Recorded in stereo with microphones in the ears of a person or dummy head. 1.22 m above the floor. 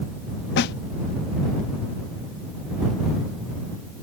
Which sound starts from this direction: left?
A snare drum, at 0.6 s.